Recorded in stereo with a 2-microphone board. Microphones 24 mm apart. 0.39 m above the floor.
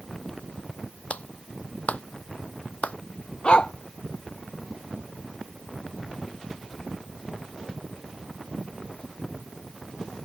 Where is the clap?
75° left (ahead or behind).